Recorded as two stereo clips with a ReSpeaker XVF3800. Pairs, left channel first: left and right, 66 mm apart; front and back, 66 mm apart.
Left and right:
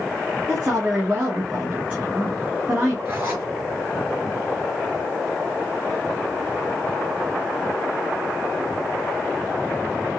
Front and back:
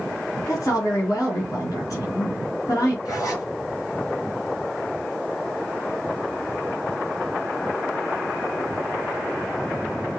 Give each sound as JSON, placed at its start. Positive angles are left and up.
{"t": 0.5, "sound": "a woman speaking", "azimuth_deg": -25, "distance_m": 2.5}
{"t": 3.0, "sound": "a zipper", "azimuth_deg": -35, "distance_m": 3.0}